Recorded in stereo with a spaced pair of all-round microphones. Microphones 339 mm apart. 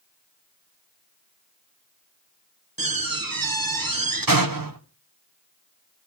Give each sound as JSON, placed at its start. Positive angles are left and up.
{"t": 2.8, "sound": "a door slam", "side_deg": -75, "distance_m": 1.3}